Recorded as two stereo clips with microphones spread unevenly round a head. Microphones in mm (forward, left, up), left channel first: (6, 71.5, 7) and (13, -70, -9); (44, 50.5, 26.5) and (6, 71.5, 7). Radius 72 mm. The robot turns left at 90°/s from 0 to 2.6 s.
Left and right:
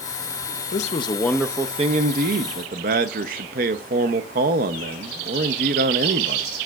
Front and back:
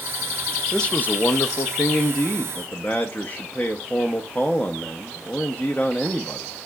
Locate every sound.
0.7 s a man speaking: 60° left, 0.6 m; by 6.5 s 110° right, 0.6 m